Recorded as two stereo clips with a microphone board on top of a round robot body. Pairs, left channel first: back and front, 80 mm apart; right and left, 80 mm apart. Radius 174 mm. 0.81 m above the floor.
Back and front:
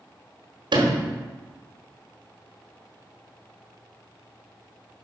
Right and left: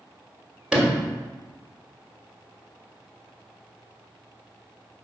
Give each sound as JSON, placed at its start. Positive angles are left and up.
{"t": 0.7, "sound": "a sliding door", "azimuth_deg": 10, "distance_m": 1.4}